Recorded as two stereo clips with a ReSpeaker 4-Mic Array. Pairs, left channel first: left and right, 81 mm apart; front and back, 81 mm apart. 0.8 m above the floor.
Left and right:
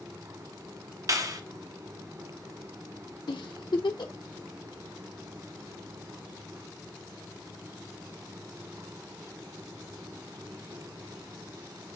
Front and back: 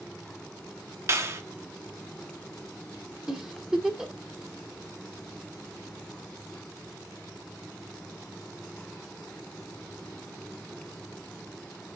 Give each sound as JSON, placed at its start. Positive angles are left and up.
{"t": 1.1, "sound": "a clap", "azimuth_deg": -130, "distance_m": 1.1}
{"t": 3.3, "sound": "a giggle", "azimuth_deg": 100, "distance_m": 1.3}